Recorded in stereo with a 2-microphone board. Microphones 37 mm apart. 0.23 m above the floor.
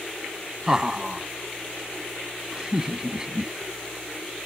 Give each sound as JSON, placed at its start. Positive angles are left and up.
{"t": 0.7, "sound": "laughter", "side_deg": -20}